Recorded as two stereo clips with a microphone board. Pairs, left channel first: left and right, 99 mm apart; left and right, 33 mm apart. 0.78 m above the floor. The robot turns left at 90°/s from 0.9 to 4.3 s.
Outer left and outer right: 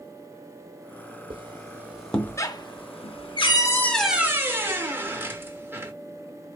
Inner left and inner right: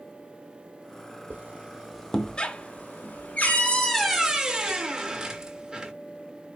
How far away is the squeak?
About 0.7 m.